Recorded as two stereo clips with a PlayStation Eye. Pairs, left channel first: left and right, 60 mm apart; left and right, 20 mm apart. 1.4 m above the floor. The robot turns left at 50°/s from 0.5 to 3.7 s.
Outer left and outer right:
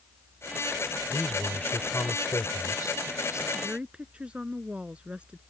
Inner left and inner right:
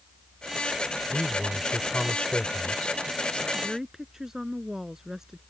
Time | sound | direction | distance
1.1 | a man speaking | 175° left | ?
3.5 | a woman speaking | 10° right (ahead or behind) | ?